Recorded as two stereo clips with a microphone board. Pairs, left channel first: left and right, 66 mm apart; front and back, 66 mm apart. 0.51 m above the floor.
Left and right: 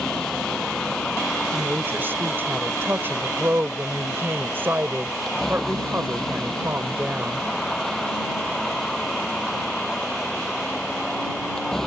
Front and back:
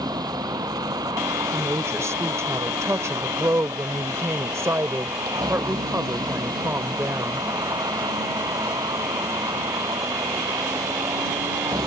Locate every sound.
0.0 s a vehicle: 175° left
1.5 s a woman speaking: 145° right